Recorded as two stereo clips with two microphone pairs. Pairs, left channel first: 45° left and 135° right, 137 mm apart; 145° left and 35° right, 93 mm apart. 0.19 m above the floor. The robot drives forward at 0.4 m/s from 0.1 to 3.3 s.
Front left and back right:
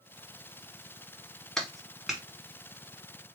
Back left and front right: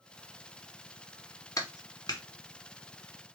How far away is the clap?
About 1.1 m.